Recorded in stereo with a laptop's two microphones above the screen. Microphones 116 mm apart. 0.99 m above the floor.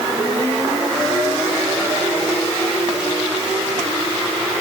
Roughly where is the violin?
No violin in this recording.